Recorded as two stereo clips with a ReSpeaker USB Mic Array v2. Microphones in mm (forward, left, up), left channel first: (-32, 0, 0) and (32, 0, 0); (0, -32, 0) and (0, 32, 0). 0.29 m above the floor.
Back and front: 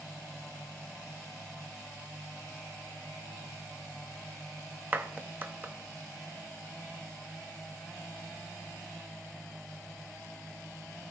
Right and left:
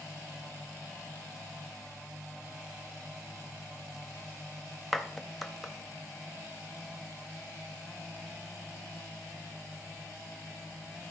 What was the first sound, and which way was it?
A clap, straight ahead.